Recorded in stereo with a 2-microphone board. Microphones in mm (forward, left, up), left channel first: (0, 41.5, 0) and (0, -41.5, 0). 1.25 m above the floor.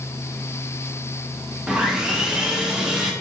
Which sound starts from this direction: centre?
Sawing, at 1.7 s.